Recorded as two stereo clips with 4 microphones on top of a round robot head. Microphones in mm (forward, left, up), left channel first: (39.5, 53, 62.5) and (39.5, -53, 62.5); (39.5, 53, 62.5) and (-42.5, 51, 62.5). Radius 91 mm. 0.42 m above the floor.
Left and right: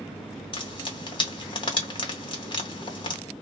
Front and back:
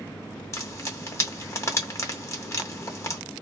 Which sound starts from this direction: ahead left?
Frying, at 0.5 s.